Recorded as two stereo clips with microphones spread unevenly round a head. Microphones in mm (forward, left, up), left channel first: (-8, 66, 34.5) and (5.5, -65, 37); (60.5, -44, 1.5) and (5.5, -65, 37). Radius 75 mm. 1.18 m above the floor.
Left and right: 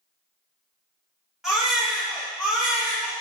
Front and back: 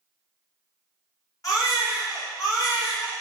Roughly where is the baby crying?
Ahead.